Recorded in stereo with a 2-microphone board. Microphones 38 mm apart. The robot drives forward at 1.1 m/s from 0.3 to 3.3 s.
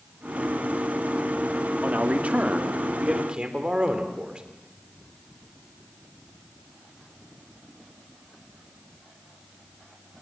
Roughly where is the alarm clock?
No alarm clock in this recording.